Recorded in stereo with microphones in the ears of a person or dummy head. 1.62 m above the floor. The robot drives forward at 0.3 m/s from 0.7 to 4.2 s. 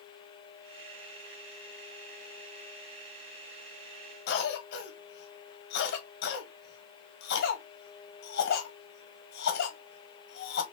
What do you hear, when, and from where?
4.3 s a cough: 65° left (ahead or behind), 1.6 m